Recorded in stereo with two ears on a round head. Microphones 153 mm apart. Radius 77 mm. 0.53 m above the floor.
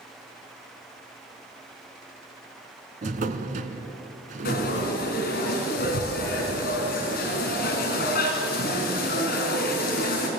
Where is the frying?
55° left (ahead or behind), 5 m.